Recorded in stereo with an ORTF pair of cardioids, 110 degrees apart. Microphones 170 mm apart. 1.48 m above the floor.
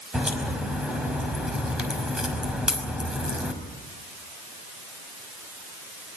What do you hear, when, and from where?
0.1 s a crack: 5° right, 5 m